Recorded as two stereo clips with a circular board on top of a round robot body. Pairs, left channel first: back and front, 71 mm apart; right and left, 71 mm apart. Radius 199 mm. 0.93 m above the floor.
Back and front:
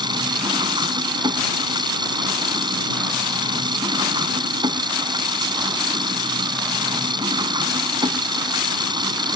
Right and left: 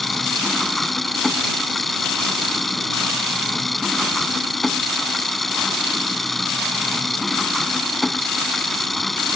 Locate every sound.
0.0 s an engine running: straight ahead